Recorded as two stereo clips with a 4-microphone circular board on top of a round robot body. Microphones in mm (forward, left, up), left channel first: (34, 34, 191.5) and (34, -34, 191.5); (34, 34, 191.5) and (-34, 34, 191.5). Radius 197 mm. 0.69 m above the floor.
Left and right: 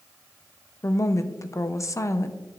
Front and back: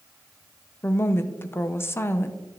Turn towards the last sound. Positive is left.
turn(degrees=55)